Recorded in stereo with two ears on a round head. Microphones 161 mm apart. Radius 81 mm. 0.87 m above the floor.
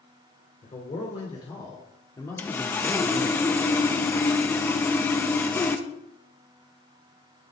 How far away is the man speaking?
About 2.5 m.